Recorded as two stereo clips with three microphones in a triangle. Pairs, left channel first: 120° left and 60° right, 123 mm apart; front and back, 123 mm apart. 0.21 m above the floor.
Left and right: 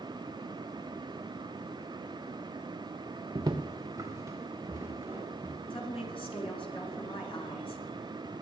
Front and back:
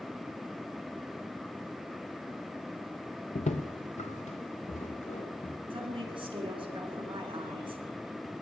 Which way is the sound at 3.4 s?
10° right.